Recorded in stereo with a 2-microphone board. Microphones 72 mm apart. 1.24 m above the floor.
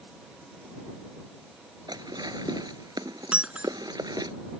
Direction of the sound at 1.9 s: 70° right (ahead or behind).